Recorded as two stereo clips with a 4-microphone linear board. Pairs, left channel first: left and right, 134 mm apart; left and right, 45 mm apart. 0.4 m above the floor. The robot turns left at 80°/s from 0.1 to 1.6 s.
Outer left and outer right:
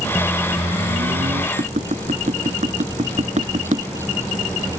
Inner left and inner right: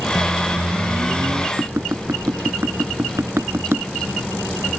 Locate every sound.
0.1 s a microwave: 5° left; by 1.5 s 105° right
1.6 s tapping: 70° right (ahead or behind)